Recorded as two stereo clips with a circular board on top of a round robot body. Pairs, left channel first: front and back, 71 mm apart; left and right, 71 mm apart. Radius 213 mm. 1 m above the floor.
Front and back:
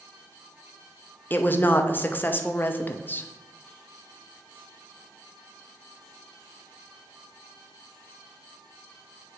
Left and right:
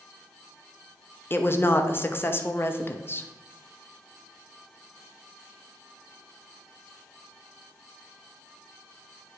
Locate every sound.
1.3 s a woman speaking: 50° left, 0.9 m